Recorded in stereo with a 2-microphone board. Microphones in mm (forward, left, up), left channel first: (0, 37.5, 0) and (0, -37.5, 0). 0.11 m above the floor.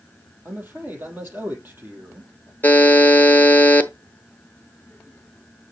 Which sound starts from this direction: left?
A buzzer, at 2.6 s.